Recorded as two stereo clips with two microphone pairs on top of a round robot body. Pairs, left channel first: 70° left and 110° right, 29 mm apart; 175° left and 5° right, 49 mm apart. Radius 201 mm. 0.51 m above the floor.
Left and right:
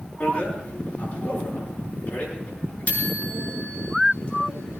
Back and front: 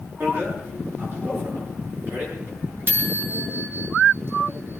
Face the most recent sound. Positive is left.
turn(degrees=45)